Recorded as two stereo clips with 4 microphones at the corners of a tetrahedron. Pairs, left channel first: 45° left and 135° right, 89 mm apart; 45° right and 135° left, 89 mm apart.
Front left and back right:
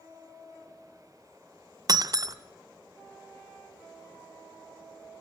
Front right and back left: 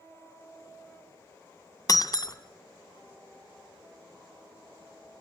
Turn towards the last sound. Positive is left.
turn(degrees=-90)